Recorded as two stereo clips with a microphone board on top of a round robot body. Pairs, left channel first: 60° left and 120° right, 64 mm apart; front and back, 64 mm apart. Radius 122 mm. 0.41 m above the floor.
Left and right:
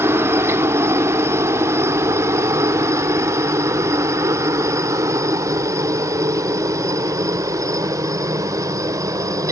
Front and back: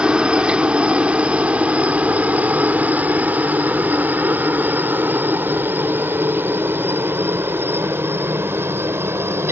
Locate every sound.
0.0 s a helicopter: 115° right; by 9.5 s 135° right